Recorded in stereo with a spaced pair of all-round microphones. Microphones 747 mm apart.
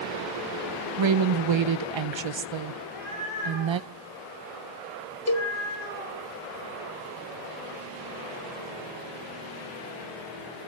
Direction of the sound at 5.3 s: 25° left (ahead or behind).